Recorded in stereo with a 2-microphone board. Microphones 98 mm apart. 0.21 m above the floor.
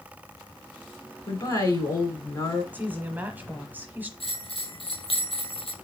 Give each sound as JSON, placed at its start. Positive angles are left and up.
{"t": 1.3, "sound": "a woman speaking", "side_deg": 35, "distance_m": 2.5}
{"t": 2.7, "sound": "a woman speaking", "side_deg": -20, "distance_m": 1.0}
{"t": 4.2, "sound": "a bell", "side_deg": 70, "distance_m": 1.6}